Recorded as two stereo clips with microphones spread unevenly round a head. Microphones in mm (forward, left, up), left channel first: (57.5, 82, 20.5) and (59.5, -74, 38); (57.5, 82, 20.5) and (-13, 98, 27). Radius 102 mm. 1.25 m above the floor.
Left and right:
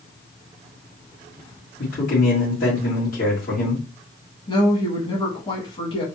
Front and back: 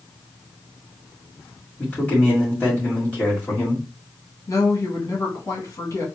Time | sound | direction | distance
1.8 | a man speaking | 60° left | 1.9 m
4.5 | a woman speaking | 35° left | 1.9 m